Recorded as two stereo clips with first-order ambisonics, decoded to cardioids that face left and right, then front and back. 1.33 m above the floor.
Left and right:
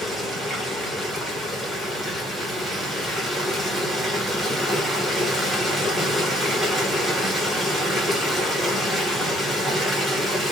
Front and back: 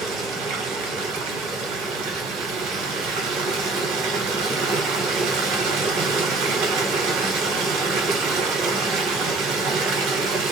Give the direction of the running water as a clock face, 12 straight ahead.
6 o'clock.